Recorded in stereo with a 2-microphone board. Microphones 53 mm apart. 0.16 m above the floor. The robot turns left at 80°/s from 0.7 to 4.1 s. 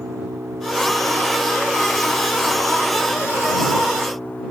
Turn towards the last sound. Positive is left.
turn(degrees=30)